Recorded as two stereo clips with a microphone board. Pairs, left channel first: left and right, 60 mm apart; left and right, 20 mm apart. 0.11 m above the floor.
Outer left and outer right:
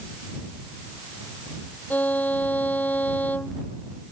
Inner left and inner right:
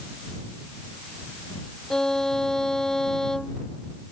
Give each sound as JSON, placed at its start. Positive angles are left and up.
{"t": 1.9, "sound": "a violin", "side_deg": 30}